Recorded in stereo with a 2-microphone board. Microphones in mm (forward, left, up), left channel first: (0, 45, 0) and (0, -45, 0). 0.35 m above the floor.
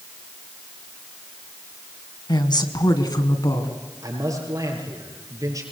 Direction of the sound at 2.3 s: 55° left (ahead or behind).